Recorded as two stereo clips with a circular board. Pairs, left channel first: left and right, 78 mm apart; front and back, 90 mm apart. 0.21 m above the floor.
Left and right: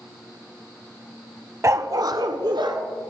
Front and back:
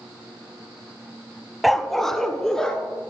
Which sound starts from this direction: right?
A dog barking, at 1.6 s.